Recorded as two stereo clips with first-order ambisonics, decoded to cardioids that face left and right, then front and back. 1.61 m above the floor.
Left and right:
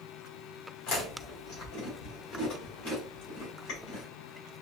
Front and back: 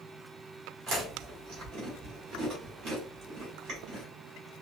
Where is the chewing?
130° left, 2.5 m.